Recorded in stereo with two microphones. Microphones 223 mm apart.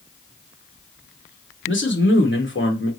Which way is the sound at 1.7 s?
60° left (ahead or behind).